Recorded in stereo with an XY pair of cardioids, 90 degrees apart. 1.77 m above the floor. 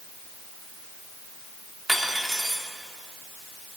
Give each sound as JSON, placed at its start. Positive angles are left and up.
{"t": 1.9, "sound": "cutlery clinking", "azimuth_deg": -5, "distance_m": 3.0}